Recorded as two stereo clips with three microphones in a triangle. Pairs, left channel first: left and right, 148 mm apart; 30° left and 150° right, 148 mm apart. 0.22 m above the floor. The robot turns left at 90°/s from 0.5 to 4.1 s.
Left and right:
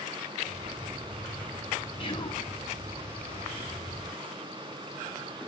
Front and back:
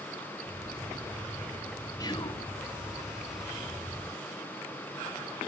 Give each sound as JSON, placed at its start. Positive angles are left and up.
{"t": 2.0, "sound": "whispering", "azimuth_deg": 80, "distance_m": 1.3}